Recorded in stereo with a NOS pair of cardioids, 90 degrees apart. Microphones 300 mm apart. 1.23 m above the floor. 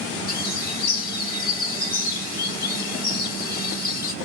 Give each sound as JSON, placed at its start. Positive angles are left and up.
{"t": 0.3, "sound": "a bird", "azimuth_deg": 30, "distance_m": 0.7}